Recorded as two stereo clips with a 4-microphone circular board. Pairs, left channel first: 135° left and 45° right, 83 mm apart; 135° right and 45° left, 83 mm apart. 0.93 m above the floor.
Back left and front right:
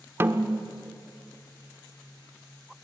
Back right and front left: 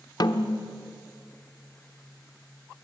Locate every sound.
0.2 s a snare drum: 105° right, 0.9 m